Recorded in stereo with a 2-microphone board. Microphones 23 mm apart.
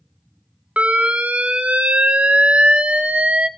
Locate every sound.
0.8 s an alarm: 65° right (ahead or behind), 1.0 m